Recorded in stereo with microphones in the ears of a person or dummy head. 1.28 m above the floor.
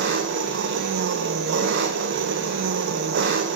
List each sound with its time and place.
0.0 s an engine running: 60° right (ahead or behind), 1.4 m